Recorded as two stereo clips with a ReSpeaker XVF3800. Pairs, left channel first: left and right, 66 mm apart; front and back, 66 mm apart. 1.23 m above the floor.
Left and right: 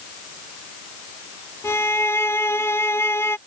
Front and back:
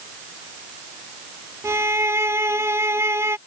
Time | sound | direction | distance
1.6 | a violin | 135° left | ?